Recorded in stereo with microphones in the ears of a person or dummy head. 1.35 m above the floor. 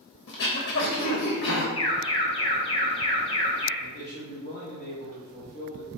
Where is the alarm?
35° left (ahead or behind), 1.4 m.